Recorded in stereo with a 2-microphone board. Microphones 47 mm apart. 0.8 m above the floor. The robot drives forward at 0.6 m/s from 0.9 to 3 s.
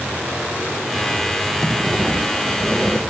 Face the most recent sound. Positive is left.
turn(degrees=0)  # may be behind; listen again after turning